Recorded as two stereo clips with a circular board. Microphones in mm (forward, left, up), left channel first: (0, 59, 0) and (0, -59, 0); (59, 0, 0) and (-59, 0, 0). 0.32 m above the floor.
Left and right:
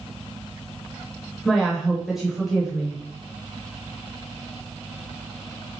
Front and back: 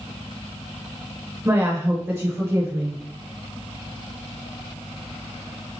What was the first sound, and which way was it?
A woman speaking, 175° right.